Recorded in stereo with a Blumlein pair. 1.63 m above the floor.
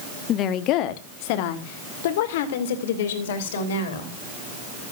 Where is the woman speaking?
30° left, 0.9 m; by 4.1 s 60° left, 3.5 m.